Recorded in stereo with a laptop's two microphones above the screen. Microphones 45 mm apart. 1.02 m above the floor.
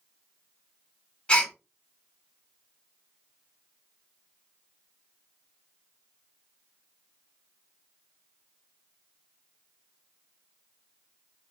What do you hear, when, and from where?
1.3 s a gasp: 25° left (ahead or behind), 0.8 m